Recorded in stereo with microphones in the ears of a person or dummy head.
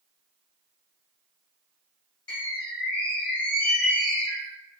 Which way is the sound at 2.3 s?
25° left (ahead or behind).